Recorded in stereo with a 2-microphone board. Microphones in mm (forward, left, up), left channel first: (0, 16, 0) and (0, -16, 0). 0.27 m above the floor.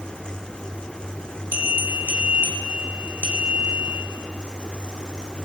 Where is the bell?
70° right (ahead or behind), 2 m.